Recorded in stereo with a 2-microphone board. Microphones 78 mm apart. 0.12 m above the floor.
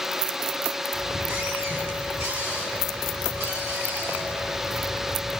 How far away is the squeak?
About 9 m.